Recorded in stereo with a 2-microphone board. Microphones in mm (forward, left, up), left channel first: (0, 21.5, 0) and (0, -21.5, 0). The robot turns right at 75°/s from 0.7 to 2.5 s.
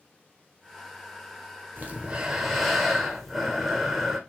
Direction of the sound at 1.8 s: 45° right.